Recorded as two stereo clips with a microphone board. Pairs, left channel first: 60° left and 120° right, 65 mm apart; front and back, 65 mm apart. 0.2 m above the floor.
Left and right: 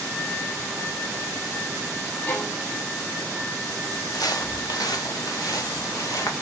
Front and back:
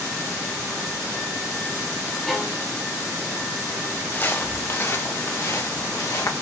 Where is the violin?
85° left, 1.8 m.